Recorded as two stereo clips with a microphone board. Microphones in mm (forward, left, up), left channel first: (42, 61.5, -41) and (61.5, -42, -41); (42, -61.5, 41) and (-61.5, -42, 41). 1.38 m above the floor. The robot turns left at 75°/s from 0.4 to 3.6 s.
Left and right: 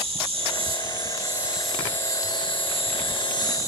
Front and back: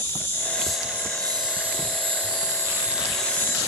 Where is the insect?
75° right, 0.9 m; by 3.7 s 45° left, 0.9 m.